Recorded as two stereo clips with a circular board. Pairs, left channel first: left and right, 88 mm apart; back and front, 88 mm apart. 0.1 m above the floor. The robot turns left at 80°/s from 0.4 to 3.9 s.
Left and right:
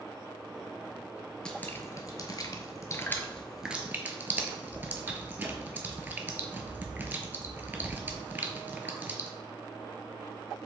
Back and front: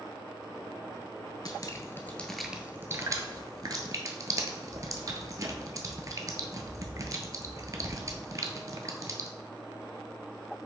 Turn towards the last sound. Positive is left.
turn(degrees=-30)